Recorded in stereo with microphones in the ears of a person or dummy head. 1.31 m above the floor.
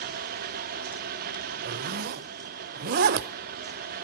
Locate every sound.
0.0 s a fan: 50° right (ahead or behind), 0.8 m
1.6 s a zipper: 55° right (ahead or behind), 0.6 m